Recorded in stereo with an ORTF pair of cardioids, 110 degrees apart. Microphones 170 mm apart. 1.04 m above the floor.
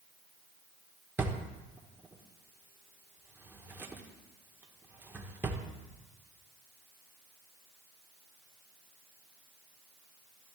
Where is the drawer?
10° right, 1.3 m.